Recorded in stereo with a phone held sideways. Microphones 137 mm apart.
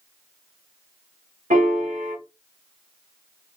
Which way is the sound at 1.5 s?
65° right (ahead or behind).